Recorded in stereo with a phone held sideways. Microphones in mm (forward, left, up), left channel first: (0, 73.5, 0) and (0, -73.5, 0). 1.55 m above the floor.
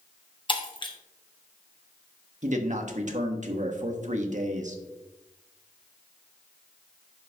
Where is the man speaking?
55° right (ahead or behind), 1.1 m.